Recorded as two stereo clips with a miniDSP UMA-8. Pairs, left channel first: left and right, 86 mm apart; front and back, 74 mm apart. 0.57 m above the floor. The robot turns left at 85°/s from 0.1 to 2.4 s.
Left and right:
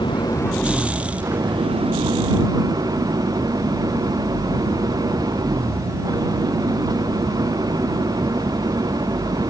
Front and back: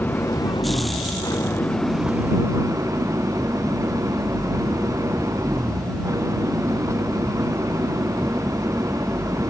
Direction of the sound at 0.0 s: 65° left.